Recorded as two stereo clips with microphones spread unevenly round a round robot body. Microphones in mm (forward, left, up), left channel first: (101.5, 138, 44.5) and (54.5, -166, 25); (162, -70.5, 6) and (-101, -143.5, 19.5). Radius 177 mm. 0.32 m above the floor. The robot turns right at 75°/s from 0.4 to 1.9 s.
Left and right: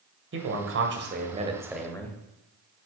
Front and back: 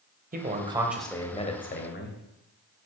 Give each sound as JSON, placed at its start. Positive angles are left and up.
{"t": 0.3, "sound": "a man speaking", "azimuth_deg": -115, "distance_m": 1.9}